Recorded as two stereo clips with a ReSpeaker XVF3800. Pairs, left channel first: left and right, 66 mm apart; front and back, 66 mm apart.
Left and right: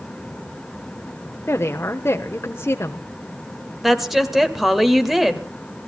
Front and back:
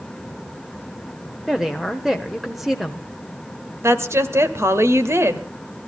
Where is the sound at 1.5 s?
95° left, 1.1 m.